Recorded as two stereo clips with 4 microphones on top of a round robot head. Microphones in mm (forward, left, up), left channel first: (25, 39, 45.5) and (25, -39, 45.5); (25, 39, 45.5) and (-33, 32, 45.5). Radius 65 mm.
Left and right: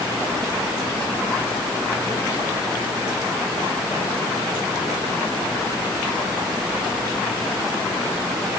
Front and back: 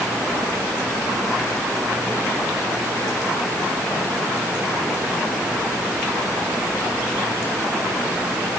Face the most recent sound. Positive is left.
No sound to turn to.